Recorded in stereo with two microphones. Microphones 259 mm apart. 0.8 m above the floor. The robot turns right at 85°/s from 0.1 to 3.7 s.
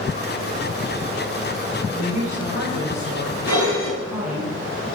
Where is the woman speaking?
160° right, 4 m; by 4.5 s 5° right, 4 m.